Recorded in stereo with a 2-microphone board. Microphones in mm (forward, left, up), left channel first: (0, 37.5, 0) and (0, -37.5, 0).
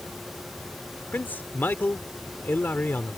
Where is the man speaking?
25° left (ahead or behind).